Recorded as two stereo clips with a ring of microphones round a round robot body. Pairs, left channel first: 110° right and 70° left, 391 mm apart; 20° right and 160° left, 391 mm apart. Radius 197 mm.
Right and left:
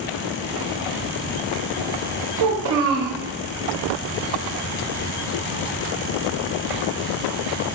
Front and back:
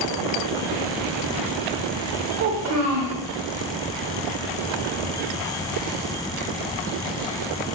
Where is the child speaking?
110° left, 0.7 m.